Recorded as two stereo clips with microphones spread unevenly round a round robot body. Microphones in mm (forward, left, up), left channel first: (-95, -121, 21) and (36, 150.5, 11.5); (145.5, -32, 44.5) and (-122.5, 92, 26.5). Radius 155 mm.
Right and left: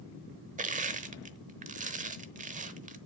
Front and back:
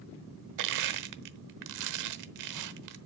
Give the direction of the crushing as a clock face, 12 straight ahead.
8 o'clock.